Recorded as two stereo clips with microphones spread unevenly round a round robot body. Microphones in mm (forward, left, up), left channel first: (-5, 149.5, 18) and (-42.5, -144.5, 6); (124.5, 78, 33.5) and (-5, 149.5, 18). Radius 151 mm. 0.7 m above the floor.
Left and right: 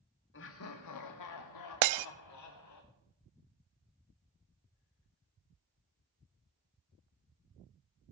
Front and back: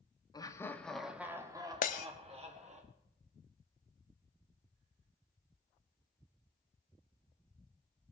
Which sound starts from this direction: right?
Breaking glass, at 1.8 s.